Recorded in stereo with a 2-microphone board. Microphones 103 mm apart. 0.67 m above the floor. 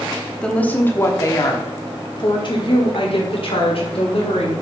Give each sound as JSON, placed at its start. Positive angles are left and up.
{"t": 0.4, "sound": "a woman speaking", "side_deg": 10, "distance_m": 1.2}